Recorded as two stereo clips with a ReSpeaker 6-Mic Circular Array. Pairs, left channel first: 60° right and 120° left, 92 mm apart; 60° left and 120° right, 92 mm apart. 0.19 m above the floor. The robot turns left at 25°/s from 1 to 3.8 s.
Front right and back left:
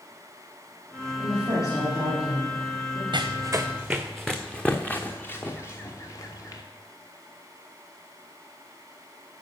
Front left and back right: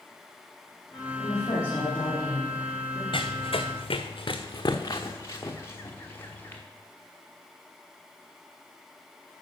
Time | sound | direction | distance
1.2 | a woman speaking | 35° left | 5 m
3.1 | running footsteps | 80° left | 0.8 m